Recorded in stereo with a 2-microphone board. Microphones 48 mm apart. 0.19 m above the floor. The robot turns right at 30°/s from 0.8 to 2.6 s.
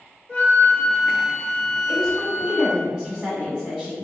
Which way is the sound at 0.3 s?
50° left.